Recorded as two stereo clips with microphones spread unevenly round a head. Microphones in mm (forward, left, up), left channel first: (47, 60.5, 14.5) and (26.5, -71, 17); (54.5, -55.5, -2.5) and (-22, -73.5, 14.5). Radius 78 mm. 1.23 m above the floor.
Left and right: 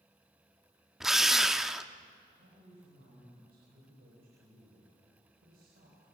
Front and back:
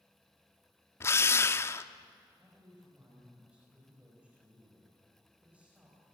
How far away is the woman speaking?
About 5 m.